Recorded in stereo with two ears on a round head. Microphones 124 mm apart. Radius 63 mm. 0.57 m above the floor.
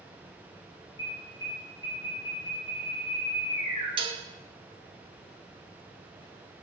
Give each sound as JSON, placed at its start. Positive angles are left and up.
{"t": 1.0, "sound": "an alarm", "side_deg": 35, "distance_m": 4.5}
{"t": 4.0, "sound": "dishes clattering", "side_deg": -35, "distance_m": 0.7}